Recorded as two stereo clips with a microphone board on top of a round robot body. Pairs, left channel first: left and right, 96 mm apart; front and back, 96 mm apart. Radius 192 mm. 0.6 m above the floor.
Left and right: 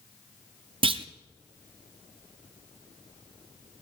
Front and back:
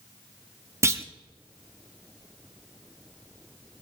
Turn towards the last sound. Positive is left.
turn(degrees=-115)